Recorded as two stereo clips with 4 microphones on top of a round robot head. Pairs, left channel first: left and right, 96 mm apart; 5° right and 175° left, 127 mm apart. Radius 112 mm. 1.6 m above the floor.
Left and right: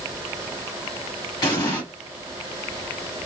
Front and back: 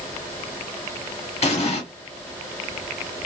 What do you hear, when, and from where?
1.4 s an explosion: 35° left, 1.3 m